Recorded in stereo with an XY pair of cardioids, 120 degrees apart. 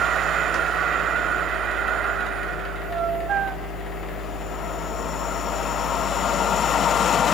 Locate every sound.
0.0 s a machine running: 50° left, 1.0 m